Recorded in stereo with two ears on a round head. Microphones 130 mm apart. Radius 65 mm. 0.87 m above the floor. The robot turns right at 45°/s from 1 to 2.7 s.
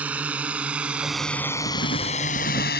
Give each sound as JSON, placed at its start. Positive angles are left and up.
{"t": 0.0, "sound": "a drone", "side_deg": -10}
{"t": 1.7, "sound": "writing", "azimuth_deg": 65}